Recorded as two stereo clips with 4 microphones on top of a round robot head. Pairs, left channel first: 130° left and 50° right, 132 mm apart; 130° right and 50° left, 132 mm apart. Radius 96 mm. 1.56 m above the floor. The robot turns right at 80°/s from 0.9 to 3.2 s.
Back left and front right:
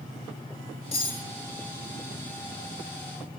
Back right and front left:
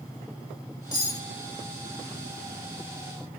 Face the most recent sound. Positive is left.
turn(degrees=-5)